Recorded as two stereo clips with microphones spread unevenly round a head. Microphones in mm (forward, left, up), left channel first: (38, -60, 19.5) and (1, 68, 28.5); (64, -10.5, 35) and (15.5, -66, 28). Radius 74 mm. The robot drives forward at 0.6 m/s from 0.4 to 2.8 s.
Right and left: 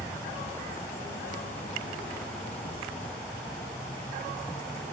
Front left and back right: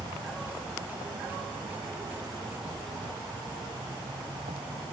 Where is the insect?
150° right; by 4.9 s 155° right.